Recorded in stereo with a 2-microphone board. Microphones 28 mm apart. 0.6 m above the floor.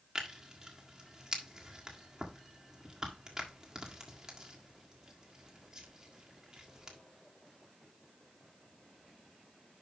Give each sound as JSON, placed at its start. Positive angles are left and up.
{"t": 0.1, "sound": "tearing paper", "side_deg": -20, "distance_m": 1.6}